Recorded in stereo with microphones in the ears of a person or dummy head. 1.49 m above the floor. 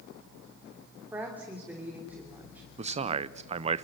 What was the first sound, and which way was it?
A woman speaking, 5° right (ahead or behind).